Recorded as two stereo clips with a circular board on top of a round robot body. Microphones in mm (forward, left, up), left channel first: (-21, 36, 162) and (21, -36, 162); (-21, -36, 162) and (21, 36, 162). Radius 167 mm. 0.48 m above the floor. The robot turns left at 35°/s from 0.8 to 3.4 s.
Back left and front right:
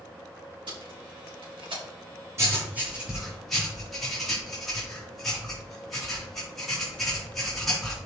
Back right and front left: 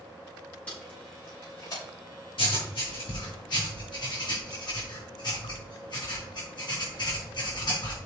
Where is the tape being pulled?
45° right, 5 m; by 1.8 s 80° right, 5 m.